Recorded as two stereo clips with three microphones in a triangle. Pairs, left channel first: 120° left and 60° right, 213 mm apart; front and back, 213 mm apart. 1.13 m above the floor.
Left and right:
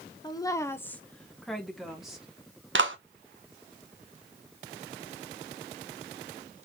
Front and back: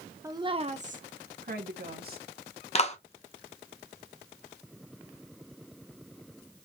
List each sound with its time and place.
0.2 s a woman speaking: 135° left, 0.6 m; by 2.3 s 145° right, 1.5 m
2.8 s a clap: 55° right, 0.8 m